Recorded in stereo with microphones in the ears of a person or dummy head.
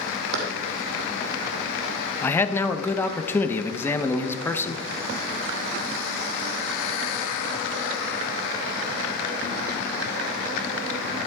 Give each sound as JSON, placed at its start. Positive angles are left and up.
{"t": 0.3, "sound": "running footsteps", "side_deg": -60, "distance_m": 2.5}
{"t": 2.2, "sound": "a man speaking", "side_deg": 20, "distance_m": 1.0}